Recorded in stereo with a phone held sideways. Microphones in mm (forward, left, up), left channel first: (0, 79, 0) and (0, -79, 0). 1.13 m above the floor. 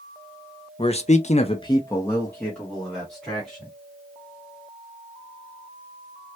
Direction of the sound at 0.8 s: 35° left (ahead or behind).